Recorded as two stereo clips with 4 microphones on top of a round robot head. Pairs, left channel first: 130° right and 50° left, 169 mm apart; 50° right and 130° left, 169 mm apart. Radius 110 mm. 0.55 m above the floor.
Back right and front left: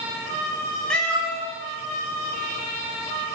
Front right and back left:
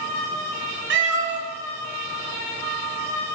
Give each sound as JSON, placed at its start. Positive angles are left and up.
{"t": 0.9, "sound": "a cat meowing", "azimuth_deg": 145, "distance_m": 1.4}